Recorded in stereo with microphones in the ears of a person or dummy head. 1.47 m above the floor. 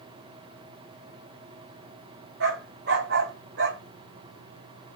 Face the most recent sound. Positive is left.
turn(degrees=-75)  # may be behind; listen again after turning